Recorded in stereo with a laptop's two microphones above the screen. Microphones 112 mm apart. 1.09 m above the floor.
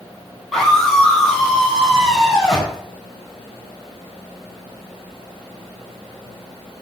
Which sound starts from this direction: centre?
A scream, at 0.5 s.